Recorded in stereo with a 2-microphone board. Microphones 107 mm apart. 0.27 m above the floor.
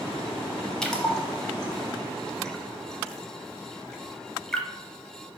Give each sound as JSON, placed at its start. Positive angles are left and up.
{"t": 0.8, "sound": "a splash", "side_deg": 5, "distance_m": 0.7}